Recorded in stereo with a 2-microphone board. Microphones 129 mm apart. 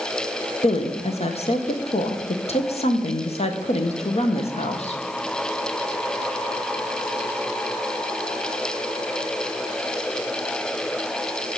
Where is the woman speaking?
55° left (ahead or behind), 1.0 m.